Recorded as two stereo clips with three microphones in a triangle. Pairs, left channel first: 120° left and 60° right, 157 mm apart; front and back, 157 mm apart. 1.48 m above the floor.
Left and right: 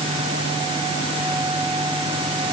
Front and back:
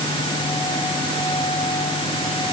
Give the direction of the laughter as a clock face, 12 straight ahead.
No laughter in this recording.